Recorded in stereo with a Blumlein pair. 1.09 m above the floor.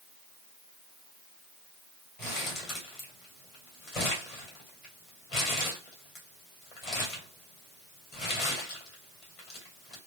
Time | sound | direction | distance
2.2 | crumpling | 30° left | 2 m